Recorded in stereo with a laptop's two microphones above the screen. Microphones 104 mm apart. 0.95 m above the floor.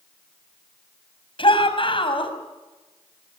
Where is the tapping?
No tapping in this recording.